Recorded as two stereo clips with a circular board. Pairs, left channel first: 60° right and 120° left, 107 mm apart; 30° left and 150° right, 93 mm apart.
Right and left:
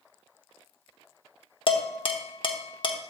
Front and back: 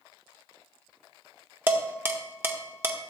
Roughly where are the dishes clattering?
Right.